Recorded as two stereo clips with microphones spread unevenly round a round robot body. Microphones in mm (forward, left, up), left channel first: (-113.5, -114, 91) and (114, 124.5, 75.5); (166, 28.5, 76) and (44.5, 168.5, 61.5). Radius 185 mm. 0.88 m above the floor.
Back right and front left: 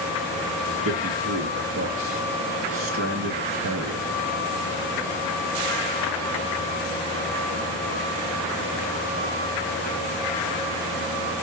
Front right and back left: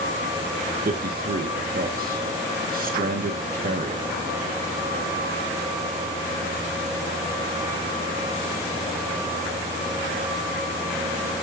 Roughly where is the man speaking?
Left.